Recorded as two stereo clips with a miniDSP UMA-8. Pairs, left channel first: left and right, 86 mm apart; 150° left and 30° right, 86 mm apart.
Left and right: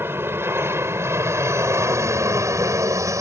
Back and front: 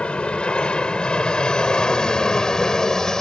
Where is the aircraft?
140° right; by 3.2 s 125° right.